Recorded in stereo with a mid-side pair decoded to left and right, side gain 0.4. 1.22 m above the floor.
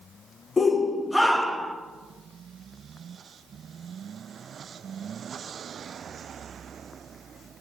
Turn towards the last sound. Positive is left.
turn(degrees=-15)